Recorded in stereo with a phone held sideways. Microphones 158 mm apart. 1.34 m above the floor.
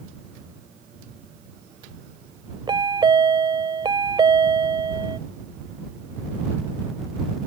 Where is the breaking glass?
No breaking glass in this recording.